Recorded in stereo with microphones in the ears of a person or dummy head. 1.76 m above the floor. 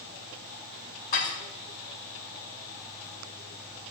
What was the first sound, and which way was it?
Dishes clattering, 50° left (ahead or behind).